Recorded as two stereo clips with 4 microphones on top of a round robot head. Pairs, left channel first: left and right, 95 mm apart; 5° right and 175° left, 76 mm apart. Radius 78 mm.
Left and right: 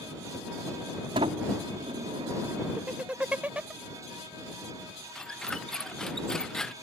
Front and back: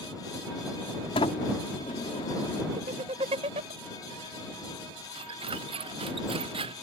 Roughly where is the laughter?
Behind.